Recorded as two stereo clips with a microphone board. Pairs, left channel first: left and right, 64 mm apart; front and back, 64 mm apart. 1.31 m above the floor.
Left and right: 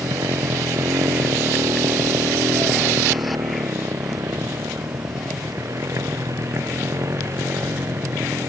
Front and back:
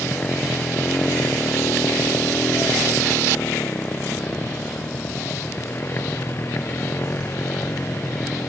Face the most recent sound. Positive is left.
turn(degrees=-50)